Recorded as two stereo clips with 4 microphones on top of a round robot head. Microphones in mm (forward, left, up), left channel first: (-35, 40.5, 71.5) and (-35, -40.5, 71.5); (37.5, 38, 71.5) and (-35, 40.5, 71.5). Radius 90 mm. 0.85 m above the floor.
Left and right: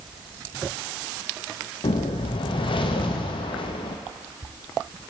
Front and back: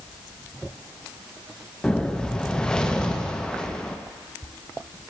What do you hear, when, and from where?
1.8 s a whoosh: 75° left, 0.6 m